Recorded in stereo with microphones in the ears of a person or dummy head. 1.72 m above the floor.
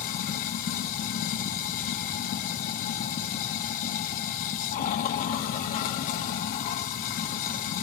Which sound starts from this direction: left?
Running water, at 0.0 s.